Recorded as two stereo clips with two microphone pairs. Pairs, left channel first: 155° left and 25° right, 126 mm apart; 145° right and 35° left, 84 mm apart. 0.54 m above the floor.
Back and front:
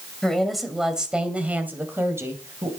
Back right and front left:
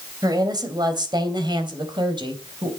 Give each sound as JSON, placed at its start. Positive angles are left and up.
{"t": 0.2, "sound": "a woman speaking", "azimuth_deg": 70, "distance_m": 3.0}